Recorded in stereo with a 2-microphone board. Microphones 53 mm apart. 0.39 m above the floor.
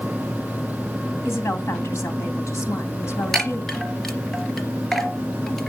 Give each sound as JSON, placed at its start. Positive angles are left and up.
{"t": 1.2, "sound": "a woman speaking", "side_deg": 65, "distance_m": 3.0}
{"t": 3.3, "sound": "a chime", "side_deg": 5, "distance_m": 3.0}